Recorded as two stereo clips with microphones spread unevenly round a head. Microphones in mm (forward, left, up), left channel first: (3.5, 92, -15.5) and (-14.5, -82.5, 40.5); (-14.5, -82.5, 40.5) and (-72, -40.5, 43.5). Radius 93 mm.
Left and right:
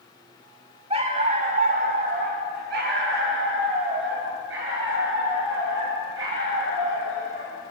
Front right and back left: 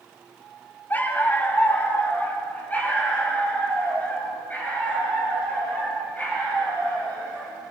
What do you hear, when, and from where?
0.9 s a dog barking: 95° right, 2.0 m; by 7.5 s 105° right, 11.5 m